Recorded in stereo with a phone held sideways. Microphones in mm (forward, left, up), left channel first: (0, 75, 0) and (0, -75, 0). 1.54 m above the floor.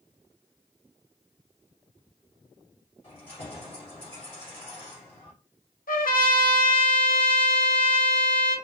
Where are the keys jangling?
45° left (ahead or behind), 3.5 m.